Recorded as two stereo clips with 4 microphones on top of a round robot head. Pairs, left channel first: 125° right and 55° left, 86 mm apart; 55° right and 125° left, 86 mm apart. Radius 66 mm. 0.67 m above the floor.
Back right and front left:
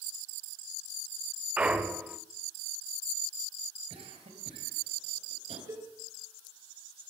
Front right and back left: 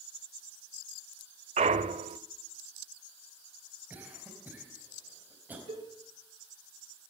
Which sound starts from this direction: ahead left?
A cough, at 3.9 s.